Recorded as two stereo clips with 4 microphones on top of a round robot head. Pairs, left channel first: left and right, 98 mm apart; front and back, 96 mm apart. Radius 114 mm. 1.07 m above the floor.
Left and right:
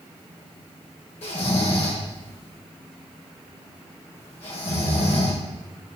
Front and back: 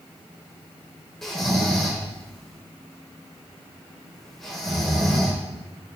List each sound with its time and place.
1.2 s snoring: 85° left, 4.5 m